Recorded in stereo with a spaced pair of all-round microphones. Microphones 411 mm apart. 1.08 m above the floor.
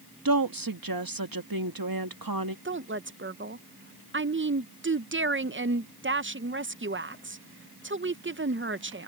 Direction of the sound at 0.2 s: 55° right (ahead or behind).